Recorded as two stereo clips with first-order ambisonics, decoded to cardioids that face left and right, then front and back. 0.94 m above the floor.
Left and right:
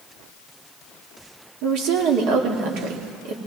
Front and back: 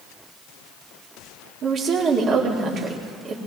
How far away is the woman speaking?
About 1.9 m.